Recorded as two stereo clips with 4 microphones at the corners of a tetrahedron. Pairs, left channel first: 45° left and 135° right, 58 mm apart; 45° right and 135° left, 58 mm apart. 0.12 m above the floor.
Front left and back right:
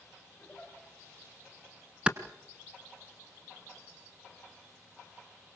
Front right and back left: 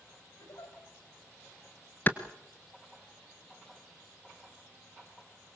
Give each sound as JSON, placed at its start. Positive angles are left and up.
{"t": 0.4, "sound": "a giggle", "azimuth_deg": -30, "distance_m": 7.5}
{"t": 2.1, "sound": "a clap", "azimuth_deg": -70, "distance_m": 1.3}